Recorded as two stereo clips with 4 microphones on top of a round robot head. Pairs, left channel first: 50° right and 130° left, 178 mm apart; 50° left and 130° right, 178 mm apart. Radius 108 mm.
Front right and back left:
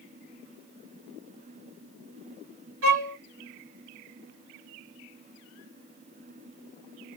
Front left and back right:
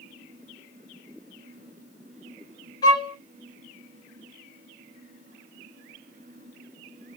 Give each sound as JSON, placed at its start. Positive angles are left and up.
{"t": 2.8, "sound": "a violin", "azimuth_deg": 125, "distance_m": 1.9}